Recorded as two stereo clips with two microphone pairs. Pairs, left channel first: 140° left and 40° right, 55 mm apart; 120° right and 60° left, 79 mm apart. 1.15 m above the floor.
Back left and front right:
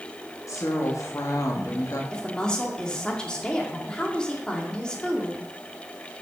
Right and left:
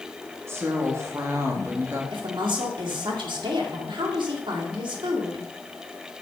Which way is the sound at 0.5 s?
120° left.